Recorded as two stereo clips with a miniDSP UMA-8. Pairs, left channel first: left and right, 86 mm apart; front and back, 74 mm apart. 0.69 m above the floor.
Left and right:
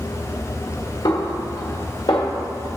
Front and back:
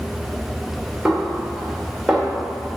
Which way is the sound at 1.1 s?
95° left.